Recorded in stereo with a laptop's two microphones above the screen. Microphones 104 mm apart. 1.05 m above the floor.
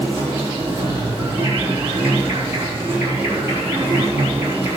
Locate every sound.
0.0 s an insect: 20° right (ahead or behind), 3.5 m